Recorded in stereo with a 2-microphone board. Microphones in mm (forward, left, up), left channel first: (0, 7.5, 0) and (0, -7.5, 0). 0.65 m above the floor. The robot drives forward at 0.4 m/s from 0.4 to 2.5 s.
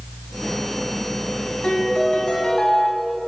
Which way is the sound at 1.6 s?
80° left.